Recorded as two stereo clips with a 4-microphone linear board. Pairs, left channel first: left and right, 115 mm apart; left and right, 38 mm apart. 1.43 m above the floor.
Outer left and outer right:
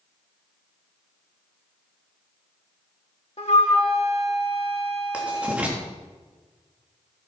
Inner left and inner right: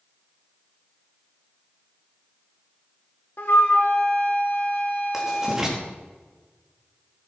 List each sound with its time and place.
3.4 s a flute: 60° left (ahead or behind), 2 m
5.1 s writing: 10° right (ahead or behind), 3 m